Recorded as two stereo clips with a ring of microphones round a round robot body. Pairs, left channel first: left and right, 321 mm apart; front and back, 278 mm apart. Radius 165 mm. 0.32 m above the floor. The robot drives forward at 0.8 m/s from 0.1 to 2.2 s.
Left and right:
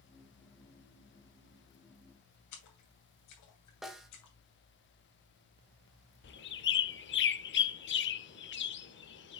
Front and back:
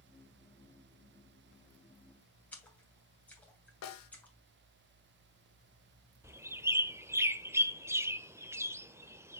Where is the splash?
85° left, 2.5 m.